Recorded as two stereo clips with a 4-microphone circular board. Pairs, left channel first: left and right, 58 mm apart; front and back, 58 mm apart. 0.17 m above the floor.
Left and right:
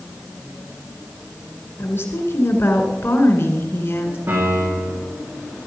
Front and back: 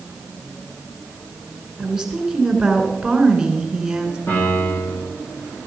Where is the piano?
50° right, 8 m.